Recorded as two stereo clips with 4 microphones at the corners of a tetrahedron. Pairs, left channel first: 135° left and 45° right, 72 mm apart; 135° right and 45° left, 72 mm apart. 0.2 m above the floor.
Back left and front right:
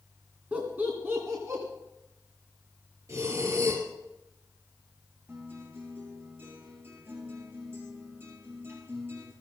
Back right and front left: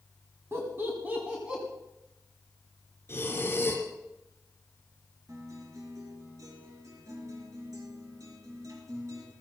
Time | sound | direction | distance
0.5 | laughter | 15° left | 2 m
3.1 | breathing | 85° right | 4 m
5.3 | a guitar | 10° left | 4 m